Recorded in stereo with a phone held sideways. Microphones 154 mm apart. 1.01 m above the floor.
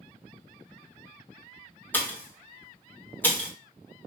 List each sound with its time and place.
1.9 s a pop: 15° left (ahead or behind), 1.2 m